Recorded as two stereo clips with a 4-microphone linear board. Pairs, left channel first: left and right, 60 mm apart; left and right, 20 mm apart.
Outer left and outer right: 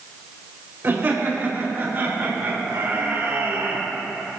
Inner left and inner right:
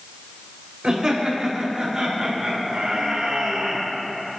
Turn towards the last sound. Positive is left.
turn(degrees=-40)  # may be behind; listen again after turning